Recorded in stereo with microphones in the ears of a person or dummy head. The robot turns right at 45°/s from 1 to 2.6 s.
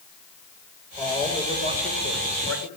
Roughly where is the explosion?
I don't hear an explosion.